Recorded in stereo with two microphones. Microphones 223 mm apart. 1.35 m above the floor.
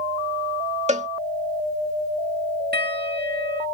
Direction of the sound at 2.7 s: 45° right (ahead or behind).